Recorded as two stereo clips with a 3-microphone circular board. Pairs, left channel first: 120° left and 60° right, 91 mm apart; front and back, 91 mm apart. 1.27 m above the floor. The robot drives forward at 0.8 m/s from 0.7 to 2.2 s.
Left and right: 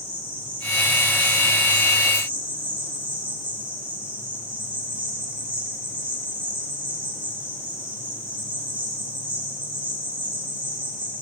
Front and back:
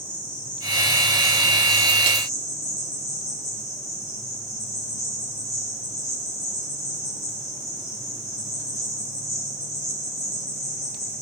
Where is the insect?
35° right, 3.5 m; by 11.2 s 50° right, 2.5 m.